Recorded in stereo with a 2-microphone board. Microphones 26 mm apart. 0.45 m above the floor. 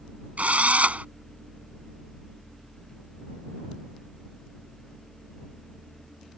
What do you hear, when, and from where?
0.4 s a drill: 65° right (ahead or behind)